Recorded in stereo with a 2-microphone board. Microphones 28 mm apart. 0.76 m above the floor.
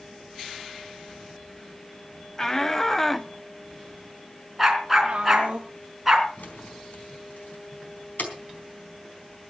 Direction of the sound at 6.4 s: 90° left.